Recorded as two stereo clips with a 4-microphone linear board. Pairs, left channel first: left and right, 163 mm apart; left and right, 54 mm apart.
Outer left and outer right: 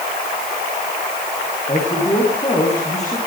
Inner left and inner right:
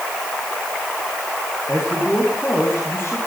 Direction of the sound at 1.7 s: 40° left (ahead or behind).